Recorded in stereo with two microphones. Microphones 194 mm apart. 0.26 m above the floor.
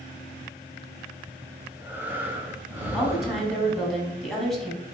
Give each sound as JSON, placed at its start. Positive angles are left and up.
{"t": 1.6, "sound": "breathing", "side_deg": -10, "distance_m": 0.7}
{"t": 2.9, "sound": "a woman speaking", "side_deg": 0, "distance_m": 1.6}